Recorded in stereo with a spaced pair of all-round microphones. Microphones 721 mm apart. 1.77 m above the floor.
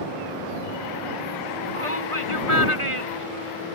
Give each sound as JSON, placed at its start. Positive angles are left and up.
{"t": 1.8, "sound": "a shout", "side_deg": -45}